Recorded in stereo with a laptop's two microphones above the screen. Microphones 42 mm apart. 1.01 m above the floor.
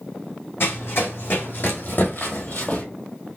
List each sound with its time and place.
0.6 s running footsteps: 70° left (ahead or behind), 2.5 m; by 2.8 s 45° left (ahead or behind), 1.5 m